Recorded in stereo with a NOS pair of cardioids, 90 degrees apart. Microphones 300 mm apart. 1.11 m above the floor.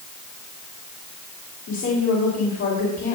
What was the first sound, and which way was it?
A woman speaking, 55° left.